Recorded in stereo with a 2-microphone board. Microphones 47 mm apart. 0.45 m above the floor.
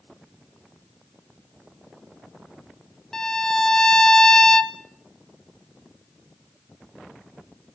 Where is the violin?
10° left (ahead or behind), 1.0 m.